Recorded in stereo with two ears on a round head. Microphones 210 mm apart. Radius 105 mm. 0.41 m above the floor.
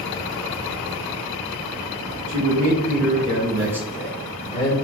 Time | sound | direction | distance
2.3 | a man speaking | 50° right (ahead or behind) | 1.8 m